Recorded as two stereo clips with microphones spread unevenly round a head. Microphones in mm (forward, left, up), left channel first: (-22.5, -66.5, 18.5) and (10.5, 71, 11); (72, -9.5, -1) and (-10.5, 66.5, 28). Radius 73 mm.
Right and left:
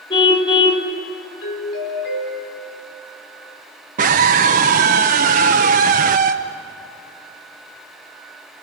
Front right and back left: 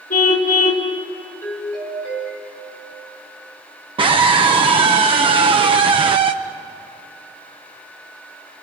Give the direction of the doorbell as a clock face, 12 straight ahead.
4 o'clock.